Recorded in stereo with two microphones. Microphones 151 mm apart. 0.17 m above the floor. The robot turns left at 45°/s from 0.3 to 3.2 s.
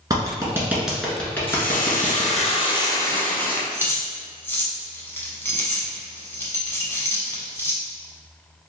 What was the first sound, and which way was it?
A clap, 25° right (ahead or behind).